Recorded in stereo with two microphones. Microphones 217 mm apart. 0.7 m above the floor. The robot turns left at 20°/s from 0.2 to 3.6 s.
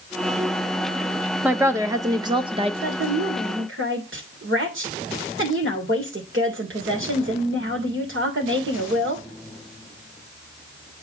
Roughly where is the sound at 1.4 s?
Centre.